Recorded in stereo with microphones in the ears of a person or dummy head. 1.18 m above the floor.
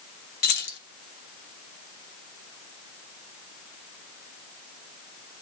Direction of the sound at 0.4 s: 55° left (ahead or behind).